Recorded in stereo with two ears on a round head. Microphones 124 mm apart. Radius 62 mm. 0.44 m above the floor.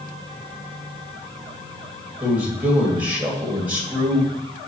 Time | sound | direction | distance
2.2 | a man speaking | 10° right (ahead or behind) | 1.7 m